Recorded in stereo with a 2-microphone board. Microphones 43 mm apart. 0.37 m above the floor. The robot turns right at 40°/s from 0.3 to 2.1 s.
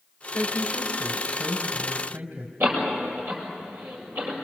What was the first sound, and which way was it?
A woman speaking, 140° right.